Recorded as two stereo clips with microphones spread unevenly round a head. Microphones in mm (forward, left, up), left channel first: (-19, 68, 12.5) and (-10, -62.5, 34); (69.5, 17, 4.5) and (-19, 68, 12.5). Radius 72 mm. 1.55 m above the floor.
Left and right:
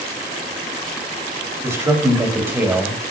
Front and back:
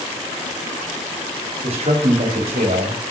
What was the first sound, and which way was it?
A man speaking, 155° right.